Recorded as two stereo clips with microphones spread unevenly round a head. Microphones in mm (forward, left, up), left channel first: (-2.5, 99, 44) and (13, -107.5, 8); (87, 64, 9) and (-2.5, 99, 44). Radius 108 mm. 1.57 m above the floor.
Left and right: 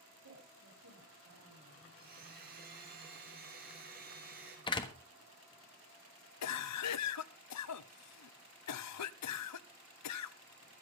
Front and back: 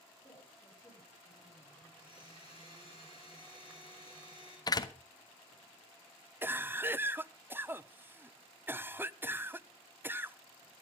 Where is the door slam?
35° left, 1.3 m.